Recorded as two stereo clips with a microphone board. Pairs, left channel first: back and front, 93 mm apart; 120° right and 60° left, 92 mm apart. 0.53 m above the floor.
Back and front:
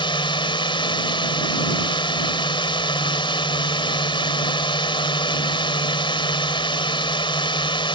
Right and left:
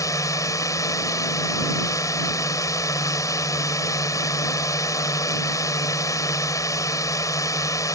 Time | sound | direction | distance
0.0 | a drone | 165° right | ?